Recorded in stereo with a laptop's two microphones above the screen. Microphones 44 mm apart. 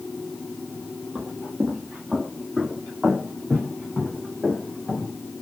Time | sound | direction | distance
1.1 | footsteps | 30° right (ahead or behind) | 1.5 m